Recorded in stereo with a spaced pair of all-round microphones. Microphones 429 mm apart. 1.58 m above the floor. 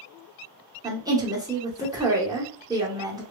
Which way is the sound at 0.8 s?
10° right (ahead or behind).